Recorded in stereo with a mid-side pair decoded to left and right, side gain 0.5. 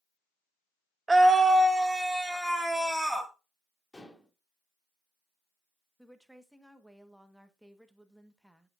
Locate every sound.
1.1 s a scream: 15° right, 1.1 m; by 3.3 s straight ahead, 2 m
3.9 s dishes clattering: 15° left, 2 m
6.0 s a woman speaking: straight ahead, 1.2 m